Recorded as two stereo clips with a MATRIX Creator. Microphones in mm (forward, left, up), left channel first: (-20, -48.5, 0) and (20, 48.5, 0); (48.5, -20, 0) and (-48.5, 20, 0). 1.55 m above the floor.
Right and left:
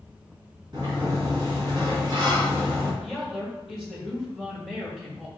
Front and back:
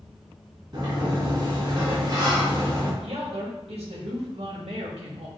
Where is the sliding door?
115° left, 2.5 m.